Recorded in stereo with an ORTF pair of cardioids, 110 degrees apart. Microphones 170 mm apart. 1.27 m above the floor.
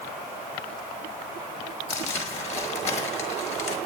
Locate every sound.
1.9 s crumpling: 45° left, 5.5 m